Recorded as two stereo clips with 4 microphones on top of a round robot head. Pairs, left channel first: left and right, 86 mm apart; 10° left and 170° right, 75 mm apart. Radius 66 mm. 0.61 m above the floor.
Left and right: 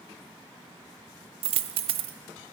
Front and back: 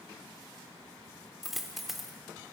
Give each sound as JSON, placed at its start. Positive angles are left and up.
{"t": 1.4, "sound": "a dropped coin", "azimuth_deg": -80, "distance_m": 0.5}